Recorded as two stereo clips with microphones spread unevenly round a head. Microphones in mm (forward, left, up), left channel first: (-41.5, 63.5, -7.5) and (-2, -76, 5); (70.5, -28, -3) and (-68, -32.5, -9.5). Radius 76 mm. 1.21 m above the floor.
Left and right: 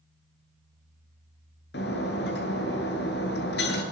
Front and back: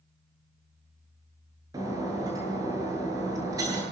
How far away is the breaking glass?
About 8 m.